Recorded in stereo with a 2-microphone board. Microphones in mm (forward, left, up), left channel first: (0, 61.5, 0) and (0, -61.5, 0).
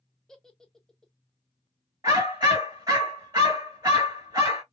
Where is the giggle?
5° left (ahead or behind), 0.6 m.